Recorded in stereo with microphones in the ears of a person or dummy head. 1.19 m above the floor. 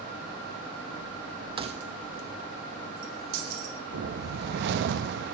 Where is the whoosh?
55° right (ahead or behind), 0.7 m.